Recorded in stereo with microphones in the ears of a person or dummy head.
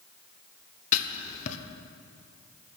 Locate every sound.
0.9 s writing: 50° left (ahead or behind), 1.0 m